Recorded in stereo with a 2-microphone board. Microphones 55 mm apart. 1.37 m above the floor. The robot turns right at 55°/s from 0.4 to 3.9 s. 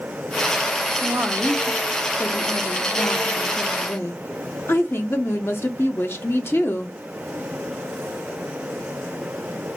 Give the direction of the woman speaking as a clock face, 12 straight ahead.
1 o'clock.